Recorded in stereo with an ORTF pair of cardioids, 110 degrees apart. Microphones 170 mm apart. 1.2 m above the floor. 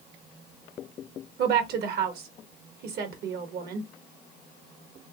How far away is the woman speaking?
About 1.2 m.